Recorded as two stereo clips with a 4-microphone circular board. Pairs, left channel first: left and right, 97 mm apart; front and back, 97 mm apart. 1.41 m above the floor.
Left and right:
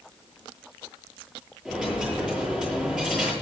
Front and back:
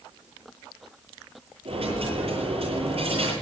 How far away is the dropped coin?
About 10 m.